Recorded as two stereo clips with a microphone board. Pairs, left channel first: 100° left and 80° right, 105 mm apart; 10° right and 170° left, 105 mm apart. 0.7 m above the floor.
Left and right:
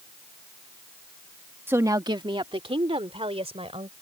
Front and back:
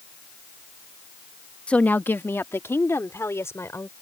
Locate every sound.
1.7 s a woman speaking: 70° right; by 3.9 s 75° right